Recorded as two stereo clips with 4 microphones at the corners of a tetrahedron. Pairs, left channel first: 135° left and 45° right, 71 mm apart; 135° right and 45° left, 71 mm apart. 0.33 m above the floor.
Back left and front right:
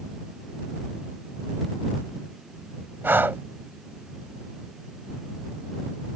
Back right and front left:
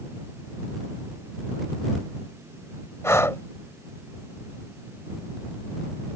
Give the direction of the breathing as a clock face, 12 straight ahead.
3 o'clock.